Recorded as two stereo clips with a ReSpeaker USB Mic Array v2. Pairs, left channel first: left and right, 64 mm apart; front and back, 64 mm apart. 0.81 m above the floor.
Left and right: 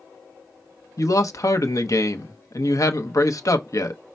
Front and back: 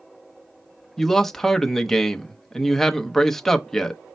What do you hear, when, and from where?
1.0 s a man speaking: 85° left, 0.7 m